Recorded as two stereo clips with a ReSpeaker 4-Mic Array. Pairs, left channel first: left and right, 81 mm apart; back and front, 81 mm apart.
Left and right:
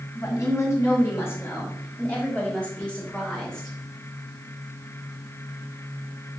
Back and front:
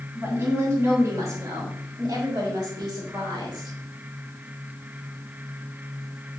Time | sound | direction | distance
0.1 | a woman speaking | 55° left | 2.5 m